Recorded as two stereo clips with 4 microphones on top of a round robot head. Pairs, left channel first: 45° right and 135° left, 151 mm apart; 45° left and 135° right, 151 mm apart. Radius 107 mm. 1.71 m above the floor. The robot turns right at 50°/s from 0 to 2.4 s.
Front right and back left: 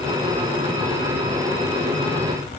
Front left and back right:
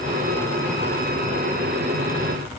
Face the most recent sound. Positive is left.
No sound to turn to.